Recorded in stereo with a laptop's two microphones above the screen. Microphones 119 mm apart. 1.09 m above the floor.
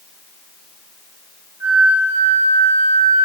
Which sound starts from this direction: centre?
A flute, at 1.6 s.